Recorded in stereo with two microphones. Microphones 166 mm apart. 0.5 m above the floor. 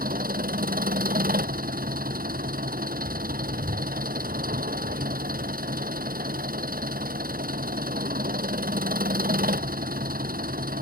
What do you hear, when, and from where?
0.0 s an engine running: 60° right (ahead or behind)